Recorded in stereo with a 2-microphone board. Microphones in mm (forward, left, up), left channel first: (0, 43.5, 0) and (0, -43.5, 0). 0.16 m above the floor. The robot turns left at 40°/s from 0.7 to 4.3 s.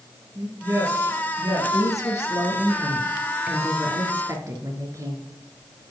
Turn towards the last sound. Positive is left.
turn(degrees=-45)